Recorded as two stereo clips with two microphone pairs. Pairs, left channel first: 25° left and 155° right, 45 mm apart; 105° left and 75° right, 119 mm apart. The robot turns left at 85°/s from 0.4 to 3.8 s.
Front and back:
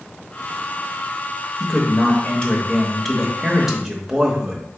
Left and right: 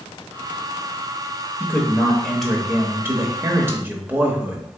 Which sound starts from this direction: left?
A man speaking, at 1.6 s.